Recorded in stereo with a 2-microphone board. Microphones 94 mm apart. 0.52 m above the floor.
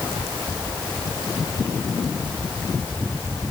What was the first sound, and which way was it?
Only background noise.